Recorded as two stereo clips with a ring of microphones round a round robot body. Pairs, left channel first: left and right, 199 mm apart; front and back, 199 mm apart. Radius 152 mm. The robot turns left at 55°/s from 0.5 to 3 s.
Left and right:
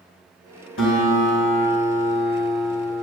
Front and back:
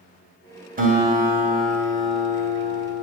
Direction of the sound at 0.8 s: 135° left.